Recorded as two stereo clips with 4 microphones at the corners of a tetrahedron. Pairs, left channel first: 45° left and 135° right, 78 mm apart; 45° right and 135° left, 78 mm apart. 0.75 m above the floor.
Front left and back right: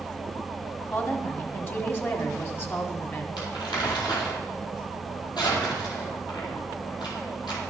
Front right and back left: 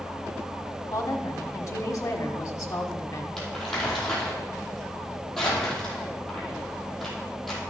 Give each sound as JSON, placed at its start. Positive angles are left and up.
{"t": 0.8, "sound": "a woman speaking", "azimuth_deg": -10, "distance_m": 1.6}
{"t": 3.4, "sound": "crumpling", "azimuth_deg": 40, "distance_m": 4.5}